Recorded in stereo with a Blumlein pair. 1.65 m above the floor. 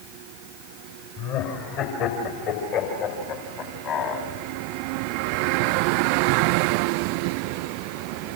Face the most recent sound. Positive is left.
turn(degrees=35)